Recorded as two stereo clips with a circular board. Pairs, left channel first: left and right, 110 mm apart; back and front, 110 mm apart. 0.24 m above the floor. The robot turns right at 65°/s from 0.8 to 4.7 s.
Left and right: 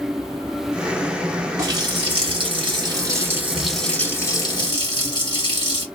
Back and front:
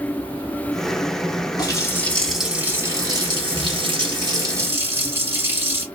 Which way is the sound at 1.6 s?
140° right.